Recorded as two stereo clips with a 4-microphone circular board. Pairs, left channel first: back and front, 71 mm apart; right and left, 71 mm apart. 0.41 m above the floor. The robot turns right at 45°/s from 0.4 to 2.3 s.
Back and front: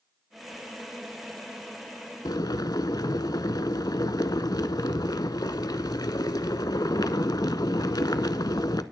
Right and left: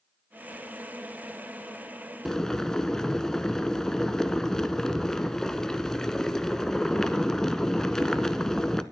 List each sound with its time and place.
2.2 s boiling: 175° right, 0.6 m; by 8.8 s 170° right, 0.6 m